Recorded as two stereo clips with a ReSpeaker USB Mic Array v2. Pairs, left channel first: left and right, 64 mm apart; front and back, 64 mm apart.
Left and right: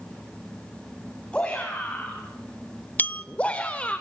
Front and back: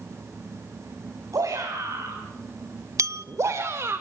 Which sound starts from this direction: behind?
A shout, at 1.3 s.